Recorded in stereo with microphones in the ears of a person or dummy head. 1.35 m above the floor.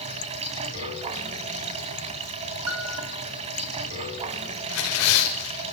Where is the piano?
80° right, 3 m.